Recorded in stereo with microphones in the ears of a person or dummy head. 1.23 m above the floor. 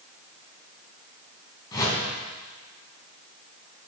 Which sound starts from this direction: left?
A whoosh, at 1.7 s.